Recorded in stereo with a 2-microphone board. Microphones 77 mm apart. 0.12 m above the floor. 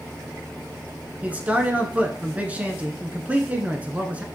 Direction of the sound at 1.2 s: 20° right (ahead or behind).